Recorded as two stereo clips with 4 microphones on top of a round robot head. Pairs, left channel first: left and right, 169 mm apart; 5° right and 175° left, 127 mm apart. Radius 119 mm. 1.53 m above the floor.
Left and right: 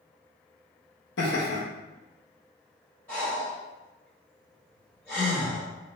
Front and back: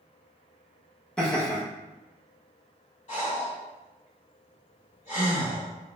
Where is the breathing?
10° left, 1.8 m.